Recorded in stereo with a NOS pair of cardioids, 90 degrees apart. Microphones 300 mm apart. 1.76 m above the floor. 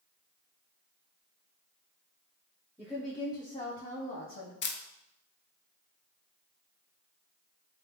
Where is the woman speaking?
5° right, 0.9 m; by 4.5 s 45° left, 1.2 m.